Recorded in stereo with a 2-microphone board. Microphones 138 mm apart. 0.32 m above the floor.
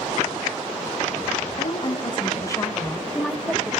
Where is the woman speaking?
45° left (ahead or behind), 1.8 m; by 3.7 s 10° right (ahead or behind), 1.4 m.